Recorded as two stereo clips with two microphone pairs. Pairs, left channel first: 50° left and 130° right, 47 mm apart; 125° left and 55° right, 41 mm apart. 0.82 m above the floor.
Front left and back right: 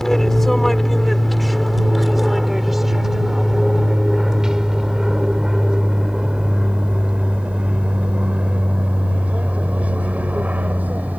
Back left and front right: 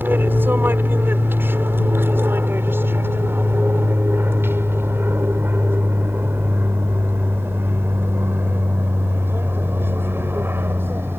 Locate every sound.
0.0 s an aircraft: 30° right; by 11.2 s 75° right